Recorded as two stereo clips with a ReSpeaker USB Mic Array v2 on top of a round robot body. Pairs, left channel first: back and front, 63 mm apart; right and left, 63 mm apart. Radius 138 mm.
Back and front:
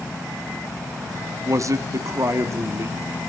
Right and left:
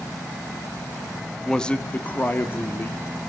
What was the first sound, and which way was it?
A man speaking, 10° right.